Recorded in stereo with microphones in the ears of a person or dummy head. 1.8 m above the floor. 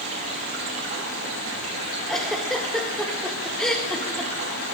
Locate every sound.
0.0 s running water: 45° right (ahead or behind), 4 m
2.1 s a giggle: 5° left (ahead or behind), 2.0 m